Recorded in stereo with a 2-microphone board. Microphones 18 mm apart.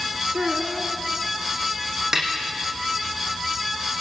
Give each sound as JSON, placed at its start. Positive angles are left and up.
{"t": 0.3, "sound": "a child speaking", "side_deg": -60, "distance_m": 1.3}
{"t": 2.1, "sound": "a snare drum", "side_deg": -25, "distance_m": 4.5}